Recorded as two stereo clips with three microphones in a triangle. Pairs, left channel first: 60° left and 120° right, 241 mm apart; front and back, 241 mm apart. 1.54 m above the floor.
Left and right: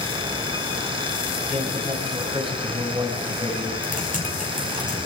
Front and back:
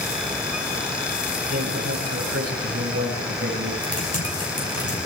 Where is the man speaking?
175° left, 7 m.